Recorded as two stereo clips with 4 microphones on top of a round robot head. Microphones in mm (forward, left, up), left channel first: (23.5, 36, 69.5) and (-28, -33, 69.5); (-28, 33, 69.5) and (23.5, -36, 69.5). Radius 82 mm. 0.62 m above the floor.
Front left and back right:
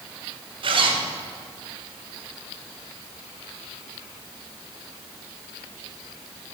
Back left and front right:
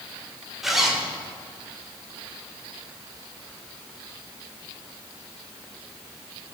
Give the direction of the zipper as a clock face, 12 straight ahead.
5 o'clock.